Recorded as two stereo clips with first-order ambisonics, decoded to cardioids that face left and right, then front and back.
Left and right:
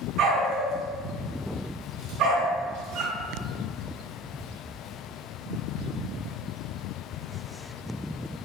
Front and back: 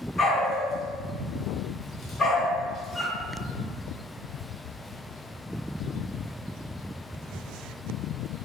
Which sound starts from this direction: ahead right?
A dog barking, at 0.2 s.